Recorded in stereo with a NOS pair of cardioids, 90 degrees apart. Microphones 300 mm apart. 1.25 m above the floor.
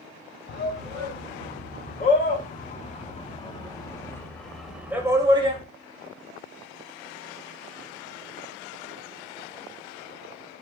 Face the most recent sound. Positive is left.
turn(degrees=-20)